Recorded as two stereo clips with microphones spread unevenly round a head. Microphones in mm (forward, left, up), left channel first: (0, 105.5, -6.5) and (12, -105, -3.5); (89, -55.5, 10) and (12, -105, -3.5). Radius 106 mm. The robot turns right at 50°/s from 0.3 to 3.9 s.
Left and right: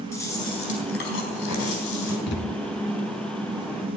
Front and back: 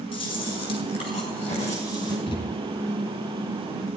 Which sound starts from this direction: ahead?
Chewing, at 0.1 s.